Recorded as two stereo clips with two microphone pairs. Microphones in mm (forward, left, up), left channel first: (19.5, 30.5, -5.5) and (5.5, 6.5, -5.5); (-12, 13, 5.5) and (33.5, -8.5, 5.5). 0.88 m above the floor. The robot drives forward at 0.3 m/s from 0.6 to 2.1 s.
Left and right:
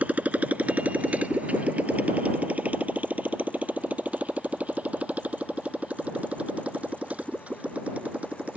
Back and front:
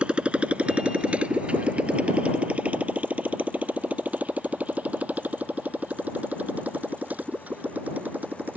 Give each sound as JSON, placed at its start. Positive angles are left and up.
{"t": 0.0, "sound": "a motorcycle", "azimuth_deg": -90}